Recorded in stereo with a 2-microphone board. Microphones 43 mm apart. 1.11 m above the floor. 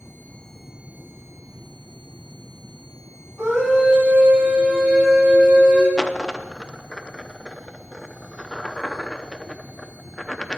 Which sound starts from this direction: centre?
A dropped coin, at 6.0 s.